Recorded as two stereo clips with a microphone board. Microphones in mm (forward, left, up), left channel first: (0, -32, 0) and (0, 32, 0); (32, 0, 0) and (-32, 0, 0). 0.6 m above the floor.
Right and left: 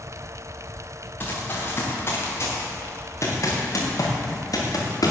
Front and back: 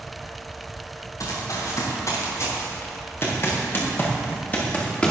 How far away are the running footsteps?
About 5.5 m.